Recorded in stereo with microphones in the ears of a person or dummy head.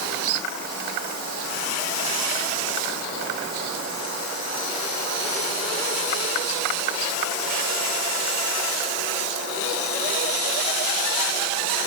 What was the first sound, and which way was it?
Only background noise.